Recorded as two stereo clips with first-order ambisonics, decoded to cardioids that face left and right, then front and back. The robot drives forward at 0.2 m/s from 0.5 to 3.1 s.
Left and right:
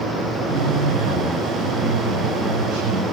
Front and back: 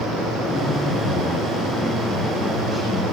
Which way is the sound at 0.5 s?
95° right.